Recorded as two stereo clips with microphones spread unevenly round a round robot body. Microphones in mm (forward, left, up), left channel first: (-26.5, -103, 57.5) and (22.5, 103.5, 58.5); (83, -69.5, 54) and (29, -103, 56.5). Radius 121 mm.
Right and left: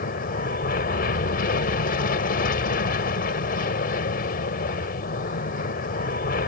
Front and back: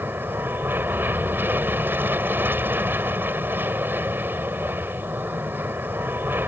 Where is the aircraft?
110° right.